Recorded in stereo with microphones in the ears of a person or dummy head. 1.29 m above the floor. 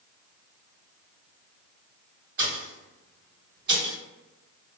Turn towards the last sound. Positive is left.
turn(degrees=-60)  # may be behind; listen again after turning